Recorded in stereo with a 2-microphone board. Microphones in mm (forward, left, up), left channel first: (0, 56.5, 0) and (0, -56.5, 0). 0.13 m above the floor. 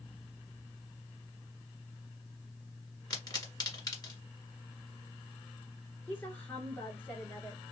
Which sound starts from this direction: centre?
A woman speaking, at 6.1 s.